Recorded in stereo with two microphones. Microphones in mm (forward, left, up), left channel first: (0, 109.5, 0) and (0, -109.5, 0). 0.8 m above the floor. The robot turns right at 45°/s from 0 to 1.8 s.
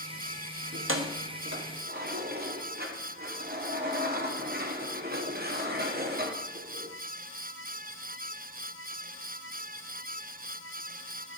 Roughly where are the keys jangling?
Right.